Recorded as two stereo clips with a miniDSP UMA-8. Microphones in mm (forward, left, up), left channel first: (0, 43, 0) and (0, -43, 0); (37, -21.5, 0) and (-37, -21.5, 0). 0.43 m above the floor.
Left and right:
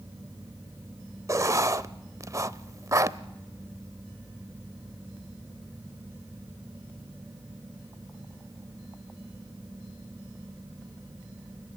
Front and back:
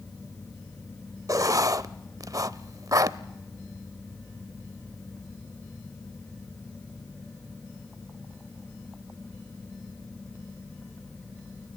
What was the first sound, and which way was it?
Writing, 140° right.